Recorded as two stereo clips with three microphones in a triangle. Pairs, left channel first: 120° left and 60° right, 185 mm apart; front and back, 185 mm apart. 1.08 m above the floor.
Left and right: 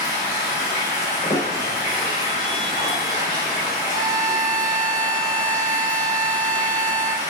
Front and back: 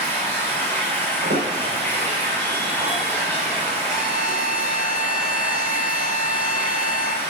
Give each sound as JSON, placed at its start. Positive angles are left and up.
{"t": 0.0, "sound": "running water", "azimuth_deg": 75, "distance_m": 3.5}
{"t": 1.2, "sound": "a squeak", "azimuth_deg": 180, "distance_m": 3.5}
{"t": 3.9, "sound": "a violin", "azimuth_deg": -30, "distance_m": 0.9}